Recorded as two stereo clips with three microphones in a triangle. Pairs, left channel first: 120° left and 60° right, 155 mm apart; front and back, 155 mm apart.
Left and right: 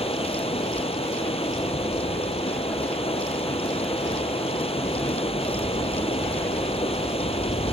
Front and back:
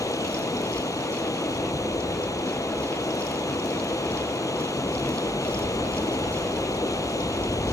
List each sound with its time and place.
0.0 s running water: 70° left